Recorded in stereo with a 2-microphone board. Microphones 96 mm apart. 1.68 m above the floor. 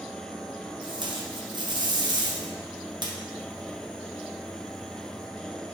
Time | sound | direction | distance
0.8 | tape being pulled | 50° right (ahead or behind) | 0.8 m